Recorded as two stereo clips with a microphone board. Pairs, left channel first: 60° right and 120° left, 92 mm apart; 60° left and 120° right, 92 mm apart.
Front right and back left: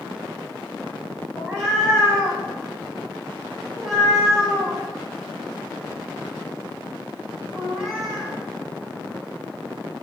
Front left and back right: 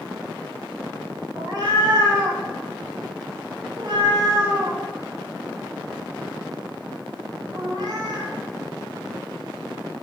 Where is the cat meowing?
155° right, 1.3 m.